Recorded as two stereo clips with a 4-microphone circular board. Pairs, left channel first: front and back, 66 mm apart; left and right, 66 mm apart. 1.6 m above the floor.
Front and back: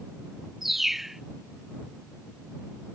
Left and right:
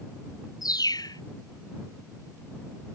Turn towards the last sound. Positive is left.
turn(degrees=90)